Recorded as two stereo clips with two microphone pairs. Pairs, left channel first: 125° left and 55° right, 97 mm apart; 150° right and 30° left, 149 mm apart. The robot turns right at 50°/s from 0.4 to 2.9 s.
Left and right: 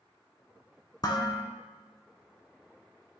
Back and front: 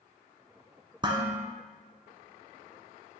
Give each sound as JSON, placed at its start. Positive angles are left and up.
{"t": 1.0, "sound": "dishes clattering", "azimuth_deg": 85, "distance_m": 1.4}